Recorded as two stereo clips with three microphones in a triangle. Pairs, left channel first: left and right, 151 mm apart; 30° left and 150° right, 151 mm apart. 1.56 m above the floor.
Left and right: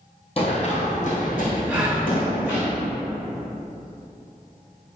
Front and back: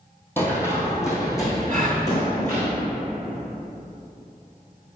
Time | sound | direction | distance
0.4 | running footsteps | 100° left | 2.0 m
1.7 | a gasp | 175° right | 1.5 m